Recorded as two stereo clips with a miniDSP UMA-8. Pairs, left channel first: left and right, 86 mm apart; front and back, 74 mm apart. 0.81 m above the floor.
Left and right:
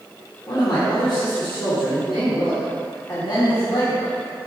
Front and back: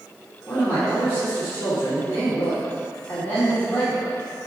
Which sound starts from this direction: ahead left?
A man speaking, at 0.5 s.